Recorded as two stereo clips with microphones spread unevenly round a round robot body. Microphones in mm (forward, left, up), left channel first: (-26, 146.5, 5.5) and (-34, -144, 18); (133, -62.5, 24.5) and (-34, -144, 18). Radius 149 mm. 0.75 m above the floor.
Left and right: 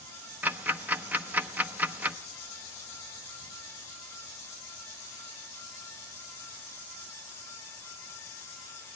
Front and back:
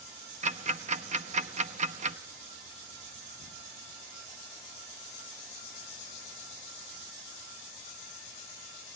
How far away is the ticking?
About 0.8 m.